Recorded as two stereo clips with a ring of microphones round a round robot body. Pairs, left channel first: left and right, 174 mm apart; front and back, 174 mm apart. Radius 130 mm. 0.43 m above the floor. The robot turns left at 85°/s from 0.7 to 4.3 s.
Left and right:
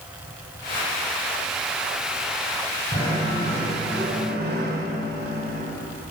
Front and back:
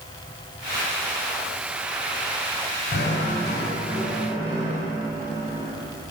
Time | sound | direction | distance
2.9 | knocking | 15° left | 3 m